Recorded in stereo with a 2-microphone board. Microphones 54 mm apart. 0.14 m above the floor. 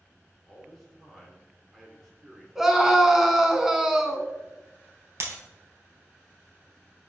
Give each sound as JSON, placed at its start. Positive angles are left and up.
{"t": 0.4, "sound": "a man speaking", "side_deg": 0, "distance_m": 2.0}
{"t": 2.5, "sound": "a scream", "side_deg": -10, "distance_m": 1.0}
{"t": 5.2, "sound": "breaking glass", "side_deg": -55, "distance_m": 1.8}